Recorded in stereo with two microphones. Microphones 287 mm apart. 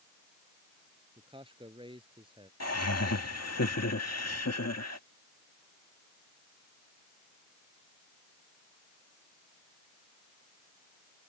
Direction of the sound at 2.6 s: 60° left (ahead or behind).